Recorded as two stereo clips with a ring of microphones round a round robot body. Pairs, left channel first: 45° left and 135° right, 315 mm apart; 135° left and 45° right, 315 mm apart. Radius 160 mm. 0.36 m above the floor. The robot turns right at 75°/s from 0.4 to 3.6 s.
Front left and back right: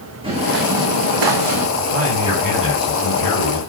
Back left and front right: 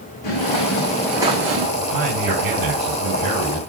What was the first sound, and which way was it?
Footsteps, 150° left.